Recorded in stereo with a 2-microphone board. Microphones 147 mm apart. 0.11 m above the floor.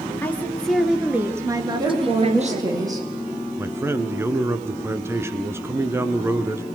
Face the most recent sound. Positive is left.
turn(degrees=-15)  # may be behind; listen again after turning